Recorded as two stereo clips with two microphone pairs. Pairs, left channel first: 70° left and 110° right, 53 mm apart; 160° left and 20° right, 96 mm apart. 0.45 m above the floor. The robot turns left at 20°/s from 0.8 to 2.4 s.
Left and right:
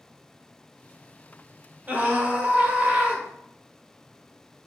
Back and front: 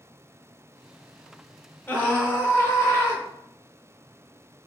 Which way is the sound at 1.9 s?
135° right.